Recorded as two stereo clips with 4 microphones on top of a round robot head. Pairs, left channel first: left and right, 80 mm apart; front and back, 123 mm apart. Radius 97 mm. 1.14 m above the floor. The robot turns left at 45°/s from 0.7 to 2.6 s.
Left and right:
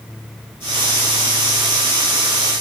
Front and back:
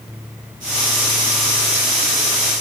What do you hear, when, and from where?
Only background noise.